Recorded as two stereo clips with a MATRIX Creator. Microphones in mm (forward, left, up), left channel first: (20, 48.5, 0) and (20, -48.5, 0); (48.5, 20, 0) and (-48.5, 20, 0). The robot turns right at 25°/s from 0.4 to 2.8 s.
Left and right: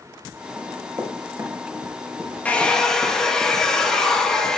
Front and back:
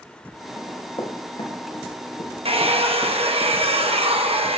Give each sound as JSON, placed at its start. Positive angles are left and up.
{"t": 0.6, "sound": "running footsteps", "azimuth_deg": -50, "distance_m": 3.5}
{"t": 2.5, "sound": "a hair dryer", "azimuth_deg": 165, "distance_m": 1.1}